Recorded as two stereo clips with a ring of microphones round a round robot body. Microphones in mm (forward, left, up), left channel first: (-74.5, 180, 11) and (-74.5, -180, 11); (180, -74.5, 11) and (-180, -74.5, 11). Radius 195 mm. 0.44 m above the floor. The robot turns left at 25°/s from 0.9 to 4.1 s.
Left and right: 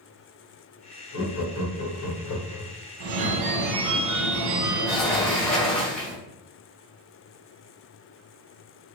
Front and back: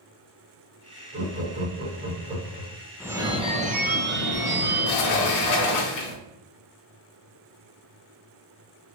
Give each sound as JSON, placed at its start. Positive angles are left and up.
{"t": 1.1, "sound": "laughter", "azimuth_deg": 130, "distance_m": 1.4}
{"t": 3.0, "sound": "a phone ringing", "azimuth_deg": -95, "distance_m": 0.5}
{"t": 4.9, "sound": "a sliding door", "azimuth_deg": 5, "distance_m": 0.6}